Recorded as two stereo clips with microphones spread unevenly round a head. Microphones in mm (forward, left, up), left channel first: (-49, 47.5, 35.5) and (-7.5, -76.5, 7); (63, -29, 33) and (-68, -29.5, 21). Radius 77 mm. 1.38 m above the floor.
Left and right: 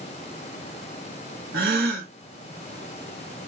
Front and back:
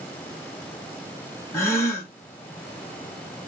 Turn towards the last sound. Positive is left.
turn(degrees=-65)